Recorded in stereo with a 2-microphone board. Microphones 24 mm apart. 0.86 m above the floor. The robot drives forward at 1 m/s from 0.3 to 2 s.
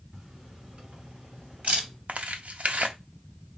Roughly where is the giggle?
I don't hear a giggle.